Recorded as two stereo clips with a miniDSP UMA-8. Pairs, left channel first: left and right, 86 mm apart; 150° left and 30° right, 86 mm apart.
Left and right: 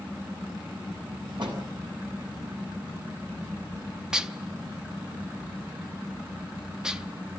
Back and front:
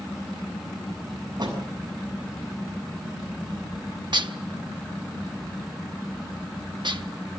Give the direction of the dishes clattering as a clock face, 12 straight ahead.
12 o'clock.